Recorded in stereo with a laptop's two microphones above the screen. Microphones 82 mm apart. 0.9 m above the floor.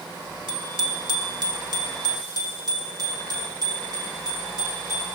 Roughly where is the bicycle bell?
Right.